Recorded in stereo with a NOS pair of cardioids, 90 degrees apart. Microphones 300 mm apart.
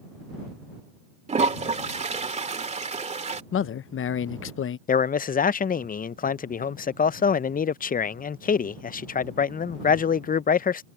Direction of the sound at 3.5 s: 50° left.